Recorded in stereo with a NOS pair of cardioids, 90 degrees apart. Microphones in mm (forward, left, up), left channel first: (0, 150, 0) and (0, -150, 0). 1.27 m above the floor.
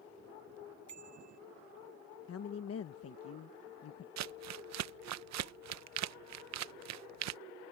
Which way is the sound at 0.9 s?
65° right.